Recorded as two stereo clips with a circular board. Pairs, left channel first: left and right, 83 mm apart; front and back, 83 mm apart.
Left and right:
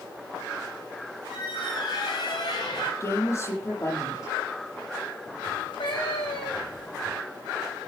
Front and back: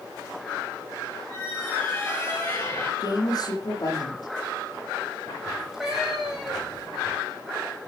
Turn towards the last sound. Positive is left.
turn(degrees=95)